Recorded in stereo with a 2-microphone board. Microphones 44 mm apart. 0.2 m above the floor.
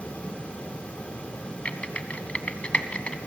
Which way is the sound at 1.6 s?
25° left (ahead or behind).